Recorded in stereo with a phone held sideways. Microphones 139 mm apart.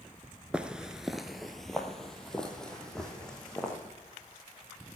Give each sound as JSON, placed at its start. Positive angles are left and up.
{"t": 0.5, "sound": "footsteps", "side_deg": -10, "distance_m": 0.8}